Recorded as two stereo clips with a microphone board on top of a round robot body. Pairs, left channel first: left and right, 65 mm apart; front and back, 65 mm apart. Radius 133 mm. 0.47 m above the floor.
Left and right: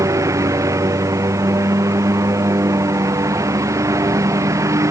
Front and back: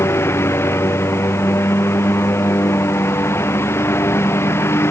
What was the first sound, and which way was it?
A lawn mower, 50° right.